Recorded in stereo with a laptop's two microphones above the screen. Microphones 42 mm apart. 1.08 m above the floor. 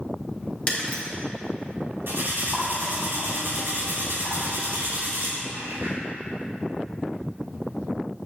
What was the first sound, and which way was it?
Breaking glass, 35° left (ahead or behind).